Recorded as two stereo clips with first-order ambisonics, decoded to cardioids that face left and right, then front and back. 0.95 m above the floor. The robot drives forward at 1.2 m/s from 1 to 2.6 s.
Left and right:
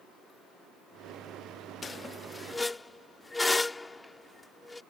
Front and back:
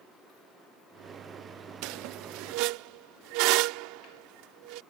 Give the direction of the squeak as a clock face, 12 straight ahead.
7 o'clock.